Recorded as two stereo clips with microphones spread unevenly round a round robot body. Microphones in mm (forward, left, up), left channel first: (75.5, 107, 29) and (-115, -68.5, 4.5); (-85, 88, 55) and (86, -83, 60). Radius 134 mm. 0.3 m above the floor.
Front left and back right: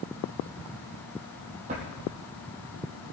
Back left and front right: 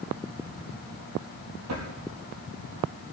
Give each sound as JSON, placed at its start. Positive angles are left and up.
{"t": 1.7, "sound": "a drawer", "azimuth_deg": -75, "distance_m": 4.0}